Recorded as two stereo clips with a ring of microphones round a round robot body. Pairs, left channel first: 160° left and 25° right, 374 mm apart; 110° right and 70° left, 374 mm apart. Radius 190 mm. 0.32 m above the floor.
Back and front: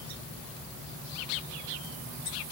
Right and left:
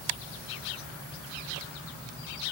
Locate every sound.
Only background noise.